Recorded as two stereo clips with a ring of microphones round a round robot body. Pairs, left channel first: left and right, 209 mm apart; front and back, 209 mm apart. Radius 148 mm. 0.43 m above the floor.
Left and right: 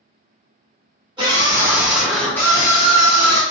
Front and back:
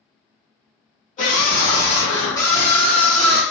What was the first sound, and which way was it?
A scream, 35° right.